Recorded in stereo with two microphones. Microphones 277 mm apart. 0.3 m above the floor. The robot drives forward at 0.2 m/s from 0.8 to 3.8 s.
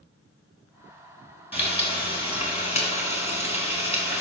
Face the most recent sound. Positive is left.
turn(degrees=25)  # may be behind; listen again after turning